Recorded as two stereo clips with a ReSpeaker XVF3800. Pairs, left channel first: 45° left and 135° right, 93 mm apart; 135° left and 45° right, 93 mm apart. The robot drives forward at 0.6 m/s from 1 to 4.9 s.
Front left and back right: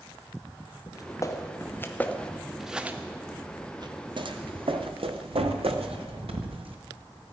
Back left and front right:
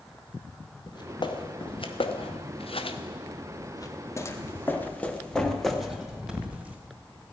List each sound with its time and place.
0.9 s footsteps: 95° left, 2 m; by 6.8 s 120° right, 2.5 m